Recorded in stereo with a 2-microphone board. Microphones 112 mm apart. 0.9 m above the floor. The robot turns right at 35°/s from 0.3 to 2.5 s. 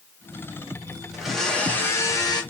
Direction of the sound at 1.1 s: 5° right.